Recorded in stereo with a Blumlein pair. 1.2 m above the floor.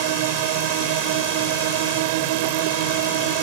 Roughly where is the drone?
Ahead right.